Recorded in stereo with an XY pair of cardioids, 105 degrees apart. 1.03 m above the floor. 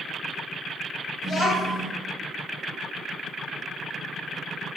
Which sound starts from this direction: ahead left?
A child speaking, at 1.2 s.